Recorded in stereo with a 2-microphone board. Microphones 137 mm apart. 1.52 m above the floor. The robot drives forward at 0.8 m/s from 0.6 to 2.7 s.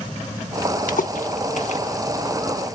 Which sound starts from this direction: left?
A splash, at 0.9 s.